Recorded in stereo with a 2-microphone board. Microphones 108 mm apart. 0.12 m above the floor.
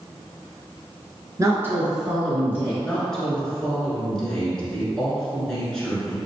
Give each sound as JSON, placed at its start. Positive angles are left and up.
{"t": 1.4, "sound": "a woman speaking", "side_deg": -30, "distance_m": 1.2}
{"t": 2.8, "sound": "a woman speaking", "side_deg": 5, "distance_m": 1.5}